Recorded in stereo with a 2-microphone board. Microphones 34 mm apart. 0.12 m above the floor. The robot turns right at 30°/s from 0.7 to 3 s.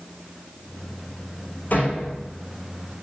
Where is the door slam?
55° left (ahead or behind), 6 m; by 2.3 s 35° left (ahead or behind), 6 m.